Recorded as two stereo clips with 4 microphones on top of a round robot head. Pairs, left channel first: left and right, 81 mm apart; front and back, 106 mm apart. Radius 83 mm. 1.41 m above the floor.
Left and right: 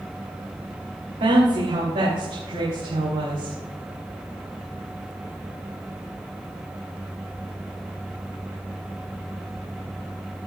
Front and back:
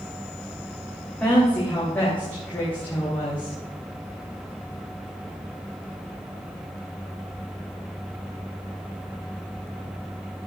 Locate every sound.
1.2 s a woman speaking: 80° right, 3 m; by 3.6 s 70° right, 4 m